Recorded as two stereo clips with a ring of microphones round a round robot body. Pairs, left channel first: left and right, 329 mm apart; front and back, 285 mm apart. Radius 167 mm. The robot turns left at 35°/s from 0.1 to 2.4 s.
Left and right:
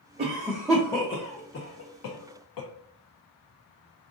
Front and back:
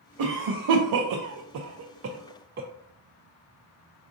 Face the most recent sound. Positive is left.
turn(degrees=120)